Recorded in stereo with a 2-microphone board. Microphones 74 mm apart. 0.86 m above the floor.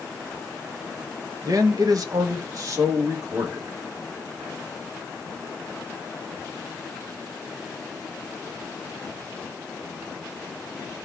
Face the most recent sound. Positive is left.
turn(degrees=-40)  # may be behind; listen again after turning